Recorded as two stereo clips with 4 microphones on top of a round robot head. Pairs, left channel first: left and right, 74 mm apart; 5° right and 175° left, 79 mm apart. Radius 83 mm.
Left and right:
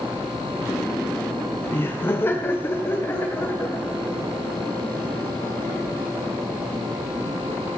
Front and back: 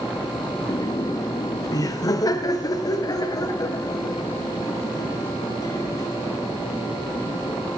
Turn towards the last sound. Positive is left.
turn(degrees=25)